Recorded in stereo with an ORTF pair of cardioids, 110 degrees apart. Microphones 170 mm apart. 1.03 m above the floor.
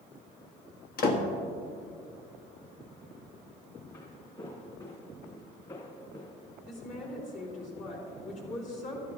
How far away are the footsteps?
About 3.5 m.